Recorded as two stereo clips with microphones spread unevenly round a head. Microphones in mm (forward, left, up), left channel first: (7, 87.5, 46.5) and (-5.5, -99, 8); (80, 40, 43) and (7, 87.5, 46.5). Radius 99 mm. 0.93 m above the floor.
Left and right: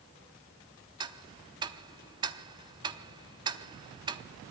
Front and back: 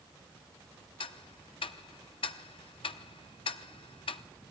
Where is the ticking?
20° right, 0.7 m.